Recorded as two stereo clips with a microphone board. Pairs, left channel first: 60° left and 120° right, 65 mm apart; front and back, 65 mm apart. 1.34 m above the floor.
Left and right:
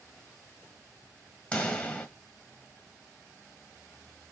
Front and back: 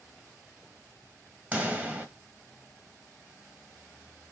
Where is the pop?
125° left, 1.4 m.